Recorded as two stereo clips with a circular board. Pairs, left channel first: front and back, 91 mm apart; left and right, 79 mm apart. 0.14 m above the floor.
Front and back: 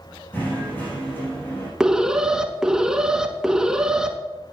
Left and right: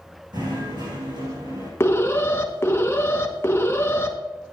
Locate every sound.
0.3 s knocking: 65° right, 7 m
1.8 s an alarm: 105° left, 1.5 m